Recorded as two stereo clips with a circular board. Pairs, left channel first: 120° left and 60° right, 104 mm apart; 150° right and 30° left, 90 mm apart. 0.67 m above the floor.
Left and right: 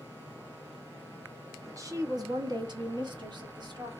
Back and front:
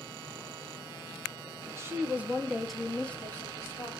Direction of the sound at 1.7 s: 10° right.